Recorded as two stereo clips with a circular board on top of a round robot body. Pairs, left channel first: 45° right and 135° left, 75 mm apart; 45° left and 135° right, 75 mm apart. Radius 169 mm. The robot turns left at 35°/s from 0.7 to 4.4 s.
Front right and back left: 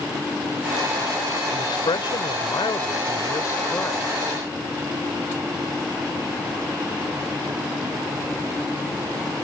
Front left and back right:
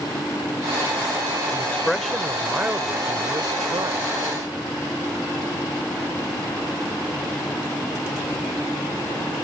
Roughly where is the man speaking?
Ahead right.